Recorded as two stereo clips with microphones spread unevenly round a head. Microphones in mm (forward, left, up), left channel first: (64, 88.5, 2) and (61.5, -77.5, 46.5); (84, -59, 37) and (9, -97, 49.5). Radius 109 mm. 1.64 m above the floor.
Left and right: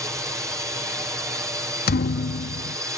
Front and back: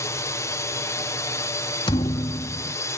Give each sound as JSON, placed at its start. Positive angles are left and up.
{"t": 0.0, "sound": "a drone", "azimuth_deg": -10}
{"t": 1.9, "sound": "a thud", "azimuth_deg": 70}